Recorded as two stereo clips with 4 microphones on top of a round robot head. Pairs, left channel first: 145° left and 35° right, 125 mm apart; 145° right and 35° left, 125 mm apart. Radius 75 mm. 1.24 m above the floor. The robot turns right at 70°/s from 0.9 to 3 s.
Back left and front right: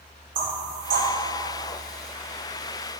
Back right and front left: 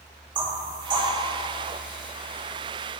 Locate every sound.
0.3 s knocking: 20° right, 2.0 m; by 1.1 s 10° right, 2.0 m